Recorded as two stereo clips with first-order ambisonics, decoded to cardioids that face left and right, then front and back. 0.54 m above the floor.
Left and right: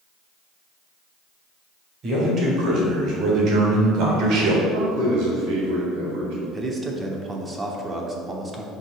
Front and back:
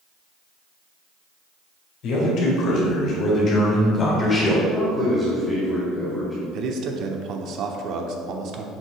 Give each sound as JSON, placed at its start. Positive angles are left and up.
{"t": 2.0, "sound": "a man speaking", "azimuth_deg": -35, "distance_m": 3.0}
{"t": 4.7, "sound": "a man speaking", "azimuth_deg": -95, "distance_m": 2.5}
{"t": 6.5, "sound": "a man speaking", "azimuth_deg": -160, "distance_m": 0.8}